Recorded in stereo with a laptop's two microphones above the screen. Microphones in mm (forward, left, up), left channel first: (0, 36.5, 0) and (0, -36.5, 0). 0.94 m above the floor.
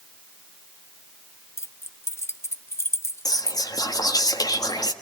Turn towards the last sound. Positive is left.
turn(degrees=60)  # may be behind; listen again after turning